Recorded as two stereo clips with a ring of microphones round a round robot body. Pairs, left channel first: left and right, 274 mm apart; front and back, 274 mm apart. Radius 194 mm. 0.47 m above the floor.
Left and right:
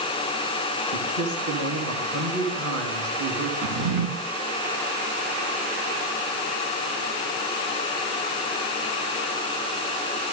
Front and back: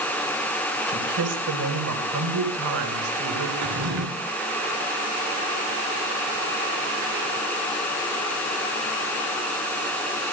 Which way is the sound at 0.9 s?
145° right.